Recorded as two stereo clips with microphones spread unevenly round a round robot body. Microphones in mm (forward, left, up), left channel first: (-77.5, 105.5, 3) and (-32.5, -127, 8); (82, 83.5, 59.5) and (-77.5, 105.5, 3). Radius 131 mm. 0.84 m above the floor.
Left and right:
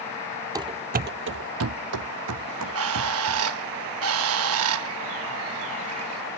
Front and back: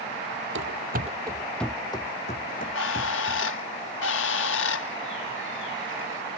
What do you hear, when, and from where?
0.6 s running footsteps: 150° right; by 3.5 s 50° right
2.5 s a bird: 40° right